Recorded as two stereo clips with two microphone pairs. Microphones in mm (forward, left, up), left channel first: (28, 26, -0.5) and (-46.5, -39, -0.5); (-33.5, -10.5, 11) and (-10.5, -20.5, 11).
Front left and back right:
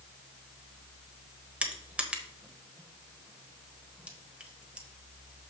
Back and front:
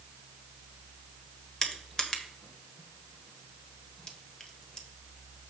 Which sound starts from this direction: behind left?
Crushing, at 1.6 s.